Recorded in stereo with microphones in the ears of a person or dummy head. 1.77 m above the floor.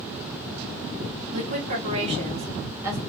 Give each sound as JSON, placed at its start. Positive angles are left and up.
{"t": 1.3, "sound": "a woman speaking", "side_deg": -45, "distance_m": 2.0}